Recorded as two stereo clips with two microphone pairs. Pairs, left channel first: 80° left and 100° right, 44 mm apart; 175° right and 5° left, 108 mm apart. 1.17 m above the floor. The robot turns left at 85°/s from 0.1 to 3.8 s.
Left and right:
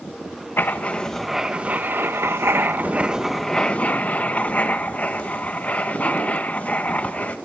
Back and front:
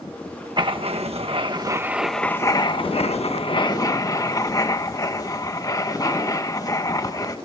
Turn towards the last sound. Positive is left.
turn(degrees=135)